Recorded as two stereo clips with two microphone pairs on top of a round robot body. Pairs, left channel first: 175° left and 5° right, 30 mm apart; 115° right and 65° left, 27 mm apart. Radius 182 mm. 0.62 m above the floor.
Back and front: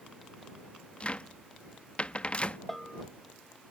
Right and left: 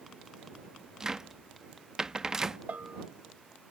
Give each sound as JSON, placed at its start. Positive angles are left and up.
{"t": 1.0, "sound": "a cupboard door", "azimuth_deg": 125}
{"t": 2.7, "sound": "a bell", "azimuth_deg": 90}